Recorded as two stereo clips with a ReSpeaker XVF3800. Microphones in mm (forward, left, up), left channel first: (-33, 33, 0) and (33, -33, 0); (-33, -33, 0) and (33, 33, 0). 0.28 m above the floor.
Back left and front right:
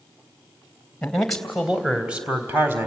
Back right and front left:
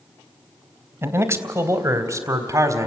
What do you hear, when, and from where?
1.0 s a man speaking: 65° left, 1.5 m; by 2.9 s 10° left, 1.9 m